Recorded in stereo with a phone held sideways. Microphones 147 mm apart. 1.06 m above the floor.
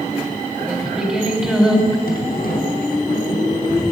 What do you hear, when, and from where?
0.7 s singing: 5° right (ahead or behind), 4 m
2.1 s a sliding door: 80° left, 3.5 m